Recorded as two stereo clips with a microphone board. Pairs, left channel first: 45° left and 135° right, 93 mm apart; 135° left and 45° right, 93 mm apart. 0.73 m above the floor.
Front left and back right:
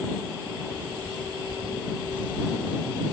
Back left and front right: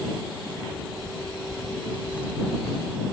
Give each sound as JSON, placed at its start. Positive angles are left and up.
{"t": 0.5, "sound": "footsteps", "azimuth_deg": -60}